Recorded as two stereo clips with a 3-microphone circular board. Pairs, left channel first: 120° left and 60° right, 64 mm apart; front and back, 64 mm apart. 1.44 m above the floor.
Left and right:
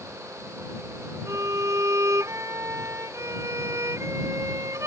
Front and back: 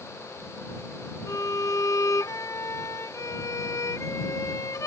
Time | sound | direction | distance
1.3 | a violin | 30° right | ?